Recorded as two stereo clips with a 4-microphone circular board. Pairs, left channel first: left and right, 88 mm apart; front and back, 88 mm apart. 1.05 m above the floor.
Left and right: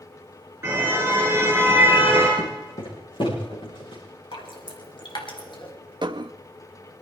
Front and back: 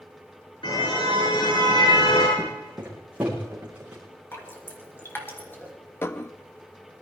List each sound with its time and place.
0.6 s a car horn: 25° right, 7.5 m
2.4 s footsteps: 115° left, 4.5 m; by 4.0 s 100° left, 6 m
4.3 s dripping: 65° left, 3 m
6.0 s dishes clattering: 65° right, 0.6 m